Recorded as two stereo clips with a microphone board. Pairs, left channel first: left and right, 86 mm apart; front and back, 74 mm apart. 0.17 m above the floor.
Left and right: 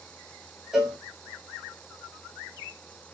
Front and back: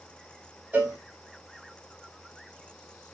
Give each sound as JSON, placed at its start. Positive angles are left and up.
{"t": 0.7, "sound": "a cowbell", "azimuth_deg": -165, "distance_m": 1.1}